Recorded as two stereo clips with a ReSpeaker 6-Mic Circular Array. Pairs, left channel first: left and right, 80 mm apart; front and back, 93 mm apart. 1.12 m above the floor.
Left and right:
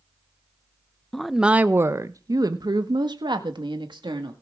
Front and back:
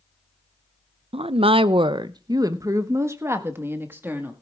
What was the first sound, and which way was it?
A woman speaking, 170° left.